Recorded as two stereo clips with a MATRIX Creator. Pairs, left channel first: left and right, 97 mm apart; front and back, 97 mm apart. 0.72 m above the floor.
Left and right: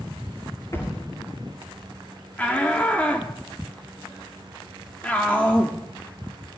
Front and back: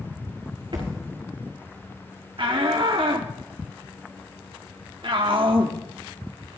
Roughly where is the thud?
Behind left.